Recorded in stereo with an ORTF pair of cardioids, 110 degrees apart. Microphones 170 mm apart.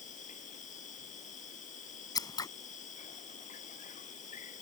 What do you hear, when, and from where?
0.0 s an insect: 45° left
2.1 s scissors: 20° left